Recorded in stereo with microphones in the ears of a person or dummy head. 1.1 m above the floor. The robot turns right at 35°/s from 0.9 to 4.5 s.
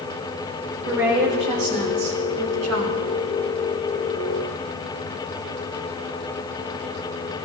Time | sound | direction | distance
0.8 | a woman speaking | 160° right | 4 m